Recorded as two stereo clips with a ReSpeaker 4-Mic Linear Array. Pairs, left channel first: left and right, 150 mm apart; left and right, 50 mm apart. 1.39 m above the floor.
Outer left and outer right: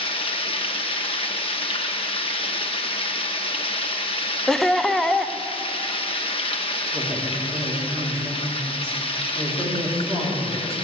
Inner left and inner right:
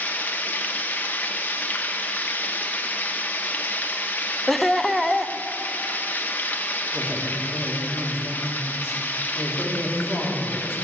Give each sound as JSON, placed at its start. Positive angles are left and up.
{"t": 0.0, "sound": "running water", "side_deg": 40, "distance_m": 1.0}
{"t": 4.5, "sound": "laughter", "side_deg": 5, "distance_m": 0.7}
{"t": 6.9, "sound": "a woman speaking", "side_deg": -20, "distance_m": 4.0}